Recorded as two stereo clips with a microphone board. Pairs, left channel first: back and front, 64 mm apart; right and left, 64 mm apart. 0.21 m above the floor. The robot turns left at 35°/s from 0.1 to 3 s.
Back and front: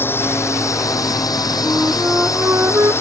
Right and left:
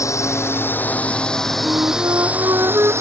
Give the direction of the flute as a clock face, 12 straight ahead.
9 o'clock.